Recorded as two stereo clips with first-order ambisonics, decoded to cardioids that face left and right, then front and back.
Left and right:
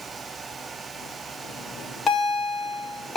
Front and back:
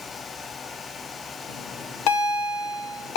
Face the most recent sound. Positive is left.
turn(degrees=15)